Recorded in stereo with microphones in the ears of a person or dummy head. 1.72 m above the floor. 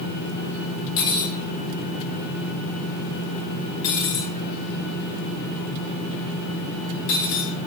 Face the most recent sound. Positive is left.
turn(degrees=50)  # may be behind; listen again after turning